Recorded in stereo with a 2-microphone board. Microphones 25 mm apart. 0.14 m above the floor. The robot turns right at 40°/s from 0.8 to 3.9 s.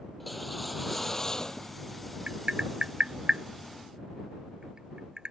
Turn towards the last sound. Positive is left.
turn(degrees=-35)  # may be behind; listen again after turning